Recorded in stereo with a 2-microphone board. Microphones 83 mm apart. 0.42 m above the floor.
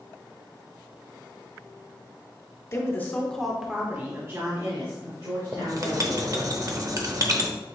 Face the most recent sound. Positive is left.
turn(degrees=-45)  # may be behind; listen again after turning